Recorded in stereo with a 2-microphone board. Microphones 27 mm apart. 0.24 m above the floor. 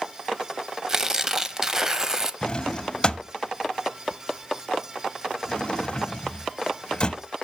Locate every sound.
0.9 s tearing paper: 20° right (ahead or behind), 0.6 m
2.4 s a drawer: 35° left (ahead or behind), 0.5 m